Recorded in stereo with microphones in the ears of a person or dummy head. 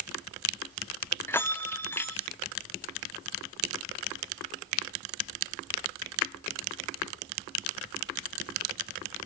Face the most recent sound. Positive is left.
turn(degrees=10)  # may be behind; listen again after turning